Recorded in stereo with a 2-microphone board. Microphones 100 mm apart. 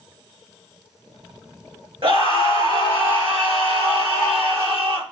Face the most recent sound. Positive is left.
turn(degrees=-65)  # may be behind; listen again after turning